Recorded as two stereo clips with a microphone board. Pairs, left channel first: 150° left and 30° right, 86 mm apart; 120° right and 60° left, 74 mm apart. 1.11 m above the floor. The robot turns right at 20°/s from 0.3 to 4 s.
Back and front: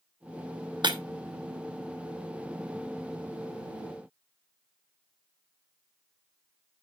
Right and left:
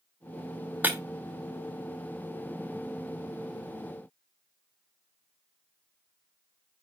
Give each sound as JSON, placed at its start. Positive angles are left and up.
{"t": 0.8, "sound": "breaking glass", "azimuth_deg": -5, "distance_m": 1.1}